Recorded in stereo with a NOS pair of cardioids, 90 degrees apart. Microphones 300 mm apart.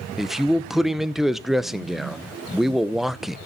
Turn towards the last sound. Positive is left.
turn(degrees=0)